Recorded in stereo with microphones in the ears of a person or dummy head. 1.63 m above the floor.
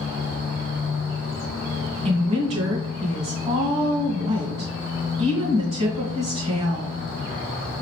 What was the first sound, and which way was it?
A woman speaking, 40° right (ahead or behind).